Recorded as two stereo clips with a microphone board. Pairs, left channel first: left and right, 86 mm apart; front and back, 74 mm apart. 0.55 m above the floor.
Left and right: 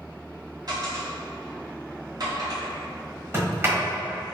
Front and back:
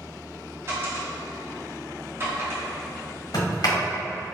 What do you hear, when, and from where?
0.7 s a dropped coin: 130° right, 1.3 m
3.3 s a sliding door: 30° right, 1.2 m